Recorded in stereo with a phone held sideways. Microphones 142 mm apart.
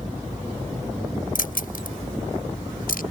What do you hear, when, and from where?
1.4 s keys jangling: 80° left; by 3.0 s 85° left